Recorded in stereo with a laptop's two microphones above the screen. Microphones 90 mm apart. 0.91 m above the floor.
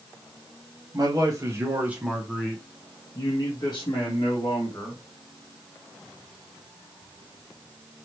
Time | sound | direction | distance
0.9 | a man speaking | 45° right (ahead or behind) | 1.2 m